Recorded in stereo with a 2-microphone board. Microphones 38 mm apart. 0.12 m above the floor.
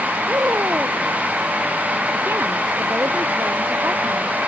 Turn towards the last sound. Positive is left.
turn(degrees=-75)  # may be behind; listen again after turning